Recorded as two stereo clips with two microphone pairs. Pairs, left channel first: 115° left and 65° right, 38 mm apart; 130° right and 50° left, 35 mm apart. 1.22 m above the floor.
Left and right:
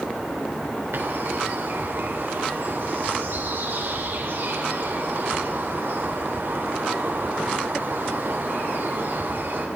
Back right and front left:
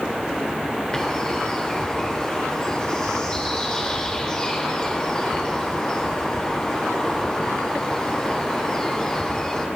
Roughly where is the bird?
Ahead right.